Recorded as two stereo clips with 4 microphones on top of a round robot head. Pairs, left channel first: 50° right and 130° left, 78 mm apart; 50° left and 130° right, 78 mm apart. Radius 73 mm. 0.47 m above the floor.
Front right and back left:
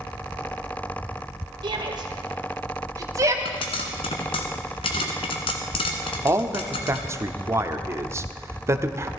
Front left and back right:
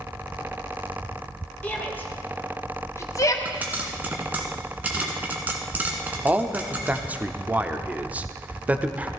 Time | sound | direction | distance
1.6 | a shout | 115° left | 2.5 m
3.5 | a pop | 60° right | 1.3 m
6.2 | a man speaking | 165° left | 0.9 m